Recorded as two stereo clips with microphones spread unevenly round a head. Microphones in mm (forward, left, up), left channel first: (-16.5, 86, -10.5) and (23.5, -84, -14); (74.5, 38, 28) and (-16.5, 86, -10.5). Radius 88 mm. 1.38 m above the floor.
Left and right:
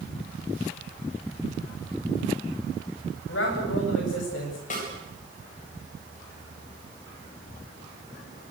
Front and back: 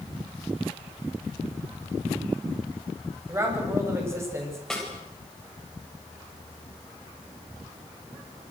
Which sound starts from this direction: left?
A man speaking, at 3.3 s.